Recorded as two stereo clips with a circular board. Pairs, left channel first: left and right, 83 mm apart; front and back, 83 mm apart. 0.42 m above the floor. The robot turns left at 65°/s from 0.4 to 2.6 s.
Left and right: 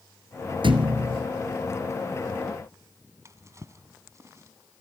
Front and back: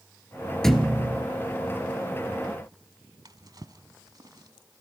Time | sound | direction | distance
0.6 | a thud | 85° right | 1.9 m
3.2 | a drawer | 145° right | 1.1 m